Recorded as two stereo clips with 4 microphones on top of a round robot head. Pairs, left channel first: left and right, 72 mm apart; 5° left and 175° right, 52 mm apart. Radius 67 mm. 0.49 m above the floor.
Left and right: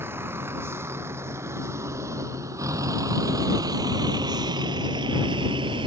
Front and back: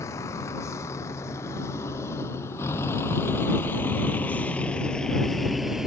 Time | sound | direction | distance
0.0 | a vehicle | 30° right | ?